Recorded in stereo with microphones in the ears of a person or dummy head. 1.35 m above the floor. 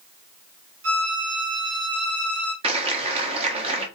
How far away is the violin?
About 1.8 m.